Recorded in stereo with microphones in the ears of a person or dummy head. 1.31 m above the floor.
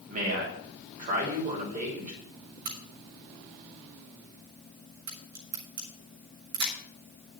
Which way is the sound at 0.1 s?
40° right (ahead or behind).